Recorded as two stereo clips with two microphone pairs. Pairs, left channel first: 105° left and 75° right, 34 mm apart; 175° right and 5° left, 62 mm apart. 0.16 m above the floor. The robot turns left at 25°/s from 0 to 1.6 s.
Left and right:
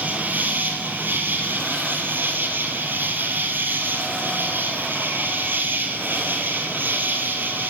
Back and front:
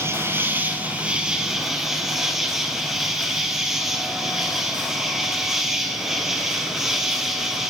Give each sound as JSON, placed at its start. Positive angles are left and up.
{"t": 0.0, "sound": "an insect", "azimuth_deg": -40, "distance_m": 2.5}